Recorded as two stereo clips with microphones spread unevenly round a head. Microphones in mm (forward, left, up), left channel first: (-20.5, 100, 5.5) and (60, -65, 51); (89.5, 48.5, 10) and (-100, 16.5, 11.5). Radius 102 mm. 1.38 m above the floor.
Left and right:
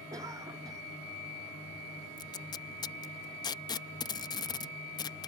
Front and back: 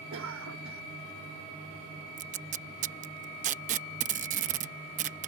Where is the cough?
140° right.